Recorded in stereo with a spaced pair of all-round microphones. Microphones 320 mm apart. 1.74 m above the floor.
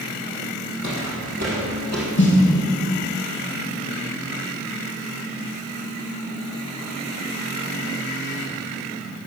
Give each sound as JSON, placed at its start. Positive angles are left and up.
{"t": 0.8, "sound": "footsteps", "side_deg": -60, "distance_m": 3.5}
{"t": 2.2, "sound": "a snare drum", "side_deg": 35, "distance_m": 2.5}